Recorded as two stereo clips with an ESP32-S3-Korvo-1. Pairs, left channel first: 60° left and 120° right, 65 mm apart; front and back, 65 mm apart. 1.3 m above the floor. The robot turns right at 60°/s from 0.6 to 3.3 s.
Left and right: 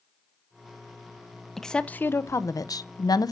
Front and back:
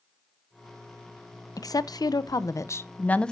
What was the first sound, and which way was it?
A woman speaking, 25° right.